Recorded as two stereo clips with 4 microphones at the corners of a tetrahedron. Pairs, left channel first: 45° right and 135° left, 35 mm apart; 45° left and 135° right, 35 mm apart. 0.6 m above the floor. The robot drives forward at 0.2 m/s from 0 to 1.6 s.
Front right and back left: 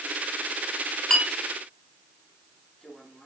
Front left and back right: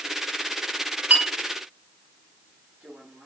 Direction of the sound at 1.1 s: 120° right.